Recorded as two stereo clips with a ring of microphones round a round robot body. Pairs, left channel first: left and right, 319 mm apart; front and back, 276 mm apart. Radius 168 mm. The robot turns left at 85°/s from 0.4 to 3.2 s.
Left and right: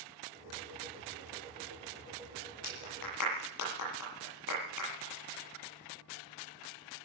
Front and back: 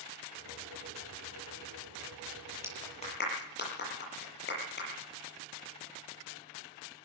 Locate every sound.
2.6 s a clap: 100° left, 9.5 m; by 4.9 s 55° left, 9.5 m